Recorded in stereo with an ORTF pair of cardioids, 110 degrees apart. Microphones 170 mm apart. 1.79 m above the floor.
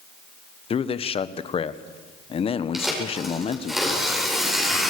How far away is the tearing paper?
About 8.5 m.